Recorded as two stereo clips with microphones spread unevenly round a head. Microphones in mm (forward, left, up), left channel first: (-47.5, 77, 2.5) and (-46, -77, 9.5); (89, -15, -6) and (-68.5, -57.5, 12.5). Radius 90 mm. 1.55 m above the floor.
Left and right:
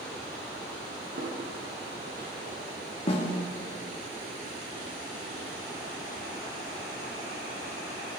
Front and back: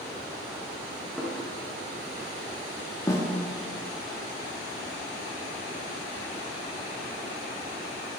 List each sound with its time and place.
1.2 s footsteps: 75° right, 3.5 m; by 2.6 s 110° right, 3 m
3.1 s a snare drum: 80° left, 1.1 m